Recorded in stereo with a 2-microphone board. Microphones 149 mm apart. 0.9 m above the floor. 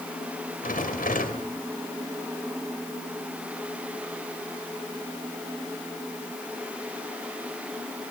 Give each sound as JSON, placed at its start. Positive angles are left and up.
{"t": 0.6, "sound": "a rattle", "side_deg": 70, "distance_m": 2.5}